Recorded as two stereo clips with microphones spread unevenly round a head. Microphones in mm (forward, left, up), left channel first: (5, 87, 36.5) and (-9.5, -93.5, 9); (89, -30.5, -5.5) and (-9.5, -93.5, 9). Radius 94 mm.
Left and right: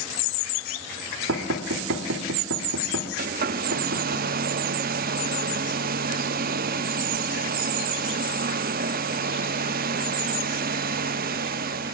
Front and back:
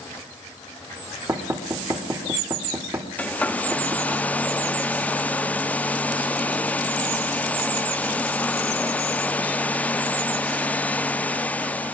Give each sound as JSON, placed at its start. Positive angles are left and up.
{"t": 1.3, "sound": "knocking", "azimuth_deg": -80, "distance_m": 1.9}
{"t": 3.2, "sound": "a hair dryer", "azimuth_deg": -50, "distance_m": 0.6}